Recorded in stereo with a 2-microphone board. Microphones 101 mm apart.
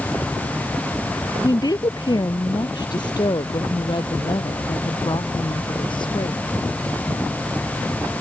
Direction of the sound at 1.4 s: 40° left (ahead or behind).